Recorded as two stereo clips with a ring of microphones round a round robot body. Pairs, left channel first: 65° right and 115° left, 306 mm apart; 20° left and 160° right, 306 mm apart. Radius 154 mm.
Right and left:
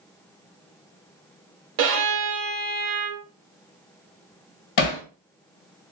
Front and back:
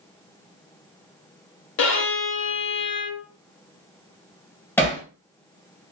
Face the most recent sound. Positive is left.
turn(degrees=-60)